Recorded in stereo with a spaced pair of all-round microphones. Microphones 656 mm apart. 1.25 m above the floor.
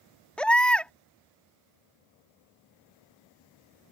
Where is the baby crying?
Centre (ahead or behind).